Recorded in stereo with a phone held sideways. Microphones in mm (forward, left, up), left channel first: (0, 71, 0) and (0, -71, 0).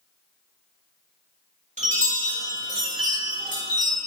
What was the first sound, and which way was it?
A chime, 55° right (ahead or behind).